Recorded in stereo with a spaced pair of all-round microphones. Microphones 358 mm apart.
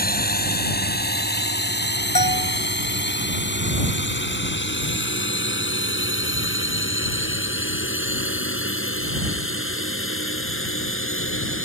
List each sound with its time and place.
0.0 s a drone: 25° left (ahead or behind); by 11.7 s 35° left (ahead or behind)
2.1 s a bell: 80° left